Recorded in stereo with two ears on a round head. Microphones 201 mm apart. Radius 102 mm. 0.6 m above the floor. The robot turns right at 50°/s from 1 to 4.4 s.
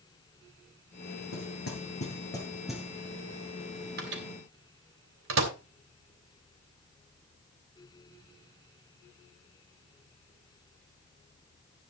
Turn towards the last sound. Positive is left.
turn(degrees=-65)  # may be behind; listen again after turning